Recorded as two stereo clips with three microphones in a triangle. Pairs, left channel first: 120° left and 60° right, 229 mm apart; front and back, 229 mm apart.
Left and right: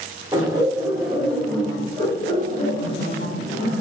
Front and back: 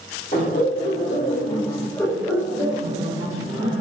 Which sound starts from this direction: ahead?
Laughter, at 0.3 s.